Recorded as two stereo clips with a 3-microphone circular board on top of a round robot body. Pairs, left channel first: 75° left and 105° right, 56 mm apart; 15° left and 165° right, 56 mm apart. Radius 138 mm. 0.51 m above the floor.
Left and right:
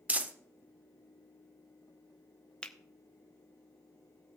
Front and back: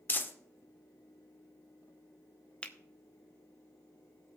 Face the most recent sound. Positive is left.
turn(degrees=40)